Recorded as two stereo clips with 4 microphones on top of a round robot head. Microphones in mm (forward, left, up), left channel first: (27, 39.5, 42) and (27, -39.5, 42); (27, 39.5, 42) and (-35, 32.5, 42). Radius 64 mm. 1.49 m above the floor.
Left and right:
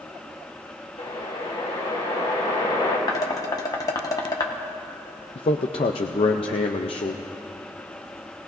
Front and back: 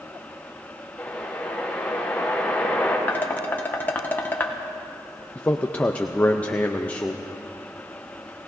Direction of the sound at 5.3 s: 75° left.